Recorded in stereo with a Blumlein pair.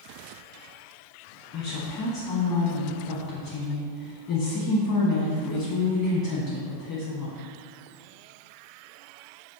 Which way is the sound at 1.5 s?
40° left.